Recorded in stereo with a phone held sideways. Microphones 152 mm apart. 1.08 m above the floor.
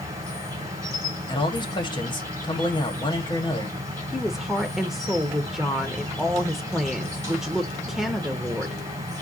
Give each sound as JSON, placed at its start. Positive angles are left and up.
{"t": 0.0, "sound": "an insect", "side_deg": -20, "distance_m": 2.0}
{"t": 1.3, "sound": "a man speaking", "side_deg": 30, "distance_m": 1.4}
{"t": 4.1, "sound": "a woman speaking", "side_deg": 0, "distance_m": 0.7}